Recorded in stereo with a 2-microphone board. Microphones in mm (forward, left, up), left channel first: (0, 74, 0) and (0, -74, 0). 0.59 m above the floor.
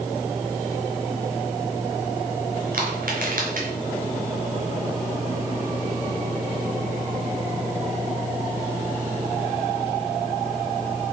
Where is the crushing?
65° right (ahead or behind), 4.5 m.